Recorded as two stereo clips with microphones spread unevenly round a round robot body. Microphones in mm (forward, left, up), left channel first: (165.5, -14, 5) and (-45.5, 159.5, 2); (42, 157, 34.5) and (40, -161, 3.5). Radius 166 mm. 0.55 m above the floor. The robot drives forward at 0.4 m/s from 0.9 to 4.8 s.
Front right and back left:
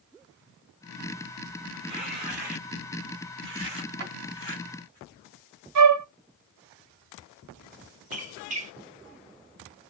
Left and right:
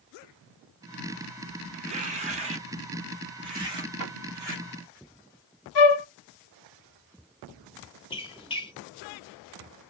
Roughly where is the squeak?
Behind.